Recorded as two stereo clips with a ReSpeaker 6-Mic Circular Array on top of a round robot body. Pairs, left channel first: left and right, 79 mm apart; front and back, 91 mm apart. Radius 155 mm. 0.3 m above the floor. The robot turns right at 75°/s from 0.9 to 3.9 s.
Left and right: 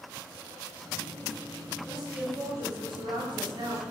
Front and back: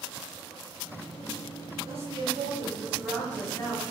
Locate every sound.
1.9 s a woman speaking: 175° left, 8.5 m; by 3.8 s 35° right, 8.5 m